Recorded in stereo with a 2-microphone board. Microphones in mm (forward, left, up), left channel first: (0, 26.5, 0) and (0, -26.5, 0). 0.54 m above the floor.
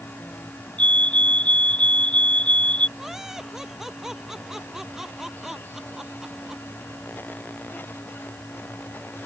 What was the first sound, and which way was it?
A fire alarm, 25° left (ahead or behind).